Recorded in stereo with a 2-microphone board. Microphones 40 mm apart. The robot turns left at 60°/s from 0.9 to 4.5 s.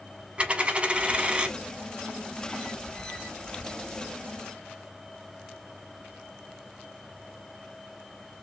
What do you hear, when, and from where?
0.4 s a dropped coin: 30° right (ahead or behind), 0.7 m; by 1.6 s 25° right (ahead or behind), 0.7 m